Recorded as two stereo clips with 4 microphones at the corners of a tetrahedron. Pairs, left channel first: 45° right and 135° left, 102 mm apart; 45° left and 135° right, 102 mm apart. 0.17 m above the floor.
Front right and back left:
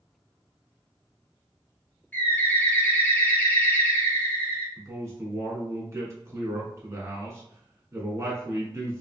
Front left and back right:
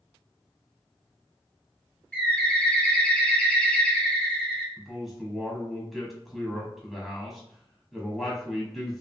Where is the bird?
15° right, 1.3 m.